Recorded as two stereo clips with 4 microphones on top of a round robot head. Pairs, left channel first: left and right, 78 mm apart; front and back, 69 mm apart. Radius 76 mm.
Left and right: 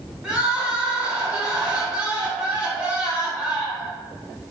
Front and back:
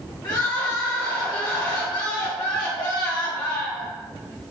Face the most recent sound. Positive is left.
turn(degrees=-15)